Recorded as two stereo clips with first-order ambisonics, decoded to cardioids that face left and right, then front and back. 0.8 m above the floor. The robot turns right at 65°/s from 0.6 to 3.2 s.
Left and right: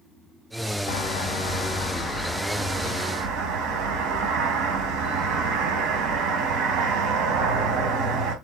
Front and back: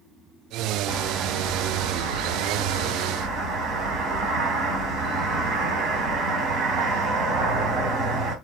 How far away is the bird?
About 3.5 m.